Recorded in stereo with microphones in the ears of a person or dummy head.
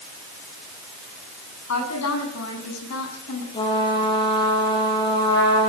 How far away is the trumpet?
About 9.5 m.